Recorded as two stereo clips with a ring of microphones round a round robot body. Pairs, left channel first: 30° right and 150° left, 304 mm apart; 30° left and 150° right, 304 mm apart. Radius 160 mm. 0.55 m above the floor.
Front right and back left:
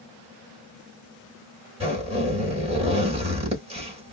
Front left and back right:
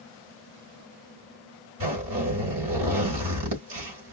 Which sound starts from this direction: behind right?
A zipper, at 1.8 s.